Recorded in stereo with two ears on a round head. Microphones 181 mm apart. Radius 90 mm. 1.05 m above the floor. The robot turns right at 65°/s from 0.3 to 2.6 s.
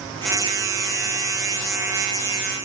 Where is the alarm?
No alarm in this recording.